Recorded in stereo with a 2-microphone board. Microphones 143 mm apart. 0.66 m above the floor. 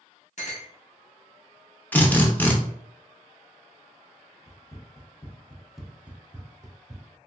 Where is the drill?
10° left (ahead or behind), 0.6 m.